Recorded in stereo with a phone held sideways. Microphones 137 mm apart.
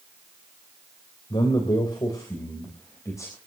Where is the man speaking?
35° left (ahead or behind), 3.5 m; by 3.4 s 20° left (ahead or behind), 4 m.